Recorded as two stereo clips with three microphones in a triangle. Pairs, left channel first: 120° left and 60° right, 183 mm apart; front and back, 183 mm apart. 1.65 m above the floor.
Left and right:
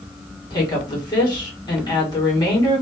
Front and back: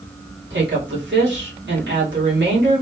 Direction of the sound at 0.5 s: 175° right.